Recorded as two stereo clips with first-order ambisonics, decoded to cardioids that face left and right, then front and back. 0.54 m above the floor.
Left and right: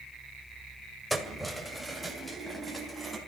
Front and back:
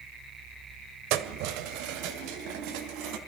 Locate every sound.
1.1 s keys jangling: 175° right, 1.8 m